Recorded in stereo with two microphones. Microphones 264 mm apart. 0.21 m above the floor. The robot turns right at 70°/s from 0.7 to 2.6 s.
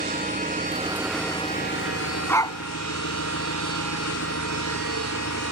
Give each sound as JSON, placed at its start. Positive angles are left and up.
{"t": 0.0, "sound": "an engine running", "azimuth_deg": -30}
{"t": 2.3, "sound": "a dog barking", "side_deg": 5}